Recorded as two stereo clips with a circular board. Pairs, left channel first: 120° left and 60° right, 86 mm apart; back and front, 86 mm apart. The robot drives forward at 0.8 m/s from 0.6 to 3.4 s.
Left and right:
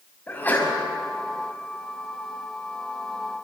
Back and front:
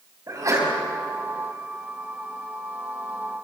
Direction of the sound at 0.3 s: 50° left.